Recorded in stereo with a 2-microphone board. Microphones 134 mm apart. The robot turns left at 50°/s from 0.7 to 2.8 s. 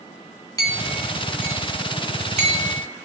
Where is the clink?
25° left (ahead or behind), 1.6 m; by 2.9 s 75° right (ahead or behind), 1.6 m.